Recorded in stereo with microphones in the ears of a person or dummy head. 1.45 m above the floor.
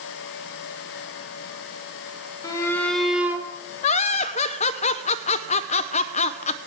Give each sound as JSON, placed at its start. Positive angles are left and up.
{"t": 2.4, "sound": "a shout", "side_deg": 25, "distance_m": 2.5}
{"t": 3.8, "sound": "laughter", "side_deg": 35, "distance_m": 0.5}